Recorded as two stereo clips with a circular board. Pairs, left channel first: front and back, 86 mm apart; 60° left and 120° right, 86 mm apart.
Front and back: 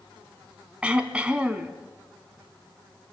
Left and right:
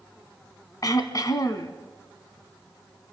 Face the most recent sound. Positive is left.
turn(degrees=105)